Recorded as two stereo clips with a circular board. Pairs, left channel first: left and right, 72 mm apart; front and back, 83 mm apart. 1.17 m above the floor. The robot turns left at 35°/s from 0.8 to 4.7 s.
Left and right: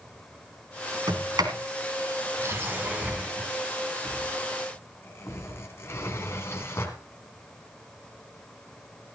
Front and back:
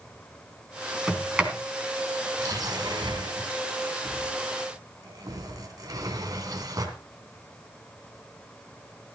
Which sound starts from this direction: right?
A sliding door, at 1.1 s.